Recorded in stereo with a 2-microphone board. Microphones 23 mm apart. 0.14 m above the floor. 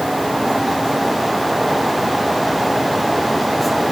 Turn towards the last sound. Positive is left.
No sound to turn to.